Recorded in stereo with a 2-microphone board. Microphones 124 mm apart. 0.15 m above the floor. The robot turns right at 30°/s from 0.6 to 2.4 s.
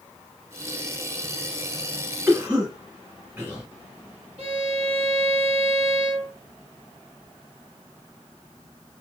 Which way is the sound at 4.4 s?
50° right (ahead or behind).